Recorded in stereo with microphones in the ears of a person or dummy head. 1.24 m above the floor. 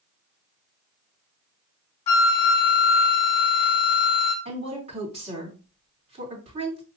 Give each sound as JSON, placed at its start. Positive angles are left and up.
{"t": 2.1, "sound": "a flute", "side_deg": 40, "distance_m": 1.0}
{"t": 4.5, "sound": "a woman speaking", "side_deg": -35, "distance_m": 3.5}